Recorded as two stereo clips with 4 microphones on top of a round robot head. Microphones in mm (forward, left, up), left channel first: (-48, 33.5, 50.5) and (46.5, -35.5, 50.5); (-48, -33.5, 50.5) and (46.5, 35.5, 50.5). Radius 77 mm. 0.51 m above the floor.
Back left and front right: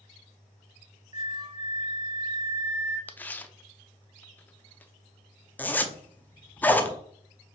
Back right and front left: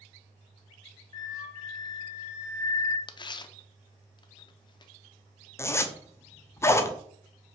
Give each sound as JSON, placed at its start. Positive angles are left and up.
{"t": 1.1, "sound": "a flute", "azimuth_deg": -85, "distance_m": 1.5}
{"t": 3.1, "sound": "tearing paper", "azimuth_deg": -150, "distance_m": 0.7}
{"t": 5.6, "sound": "a zipper", "azimuth_deg": -165, "distance_m": 0.8}